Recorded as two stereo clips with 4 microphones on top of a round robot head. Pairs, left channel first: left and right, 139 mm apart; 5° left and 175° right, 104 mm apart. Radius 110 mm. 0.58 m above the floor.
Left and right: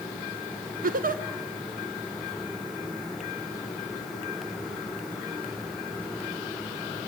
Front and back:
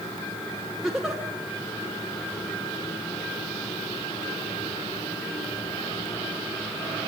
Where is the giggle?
90° right, 1.5 m.